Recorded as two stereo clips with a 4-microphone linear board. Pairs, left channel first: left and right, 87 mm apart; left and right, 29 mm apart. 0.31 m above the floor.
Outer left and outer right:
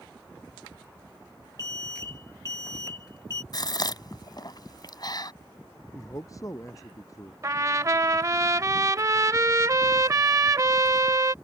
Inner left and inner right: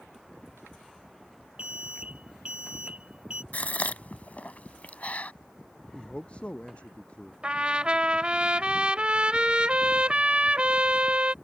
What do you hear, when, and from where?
1.6 s an alarm: 40° right (ahead or behind)
3.5 s a gasp: 55° left (ahead or behind)
5.9 s a man speaking: 40° left (ahead or behind)
7.4 s a trumpet: 40° right (ahead or behind)